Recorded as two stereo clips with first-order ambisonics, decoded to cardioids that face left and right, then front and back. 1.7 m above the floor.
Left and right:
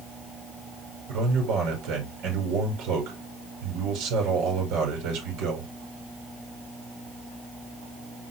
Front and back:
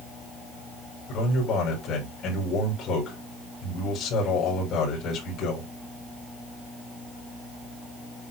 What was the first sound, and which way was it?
A man speaking, 55° right.